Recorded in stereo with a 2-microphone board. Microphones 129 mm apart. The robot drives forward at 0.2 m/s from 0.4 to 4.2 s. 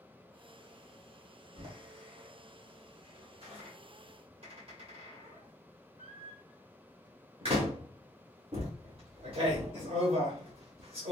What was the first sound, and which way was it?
A door slam, 55° right (ahead or behind).